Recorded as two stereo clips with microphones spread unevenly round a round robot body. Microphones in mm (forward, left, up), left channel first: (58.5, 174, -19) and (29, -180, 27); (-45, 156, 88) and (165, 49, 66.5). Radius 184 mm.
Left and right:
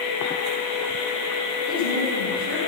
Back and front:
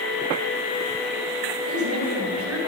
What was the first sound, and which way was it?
A woman speaking, 25° right.